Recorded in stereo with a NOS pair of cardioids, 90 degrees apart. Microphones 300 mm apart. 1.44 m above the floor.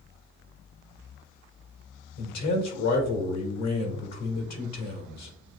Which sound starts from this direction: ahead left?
A man speaking, at 2.2 s.